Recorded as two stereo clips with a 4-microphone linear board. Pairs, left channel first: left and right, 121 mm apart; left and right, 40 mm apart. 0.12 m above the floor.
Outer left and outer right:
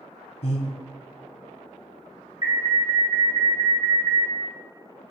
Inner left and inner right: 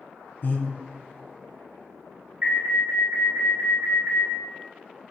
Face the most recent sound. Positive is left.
turn(degrees=-30)  # may be behind; listen again after turning